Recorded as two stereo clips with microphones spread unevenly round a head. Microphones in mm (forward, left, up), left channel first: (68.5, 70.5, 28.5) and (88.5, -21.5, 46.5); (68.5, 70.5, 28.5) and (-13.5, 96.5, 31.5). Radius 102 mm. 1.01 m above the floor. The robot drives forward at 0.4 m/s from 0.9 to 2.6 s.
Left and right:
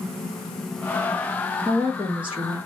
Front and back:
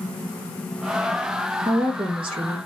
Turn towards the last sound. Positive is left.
turn(degrees=-165)